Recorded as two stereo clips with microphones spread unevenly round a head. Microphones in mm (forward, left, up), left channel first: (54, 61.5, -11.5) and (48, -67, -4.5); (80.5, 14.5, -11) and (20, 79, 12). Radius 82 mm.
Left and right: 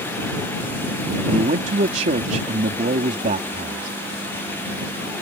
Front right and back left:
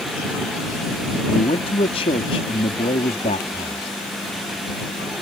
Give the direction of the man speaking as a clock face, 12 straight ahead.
2 o'clock.